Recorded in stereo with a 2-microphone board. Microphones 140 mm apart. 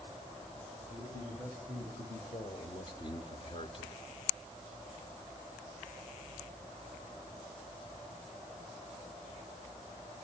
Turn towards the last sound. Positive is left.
turn(degrees=35)  # may be behind; listen again after turning